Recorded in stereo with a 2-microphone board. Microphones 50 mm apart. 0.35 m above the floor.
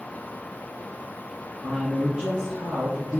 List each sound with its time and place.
1.6 s a man speaking: 10° right (ahead or behind), 3 m